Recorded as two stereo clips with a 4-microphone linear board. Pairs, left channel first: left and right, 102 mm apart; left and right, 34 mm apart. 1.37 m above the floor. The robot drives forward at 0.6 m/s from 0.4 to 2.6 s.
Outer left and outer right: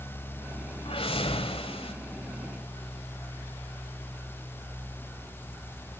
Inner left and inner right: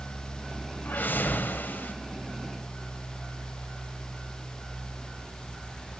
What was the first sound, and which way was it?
A whoosh, 60° left (ahead or behind).